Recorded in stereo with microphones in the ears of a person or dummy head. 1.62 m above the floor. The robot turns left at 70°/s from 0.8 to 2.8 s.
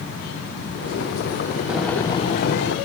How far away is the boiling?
About 1.6 m.